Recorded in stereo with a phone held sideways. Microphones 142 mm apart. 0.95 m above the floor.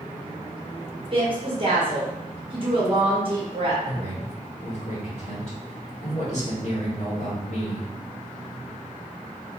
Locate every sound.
1.1 s a woman speaking: 40° right (ahead or behind), 1.1 m
3.8 s a man speaking: 50° left (ahead or behind), 1.5 m